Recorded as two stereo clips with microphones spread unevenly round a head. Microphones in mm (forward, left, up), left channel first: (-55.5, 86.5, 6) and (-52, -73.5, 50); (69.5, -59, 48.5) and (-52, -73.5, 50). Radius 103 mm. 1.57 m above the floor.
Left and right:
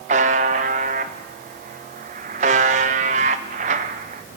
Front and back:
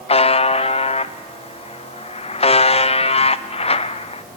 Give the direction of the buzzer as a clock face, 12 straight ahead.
1 o'clock.